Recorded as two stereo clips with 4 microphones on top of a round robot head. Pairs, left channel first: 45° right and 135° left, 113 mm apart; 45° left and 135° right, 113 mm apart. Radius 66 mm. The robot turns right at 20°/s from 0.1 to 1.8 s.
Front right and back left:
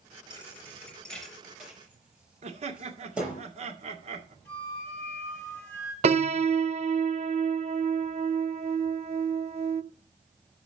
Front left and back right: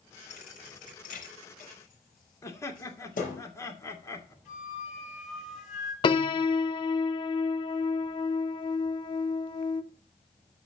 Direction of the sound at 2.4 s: 110° left.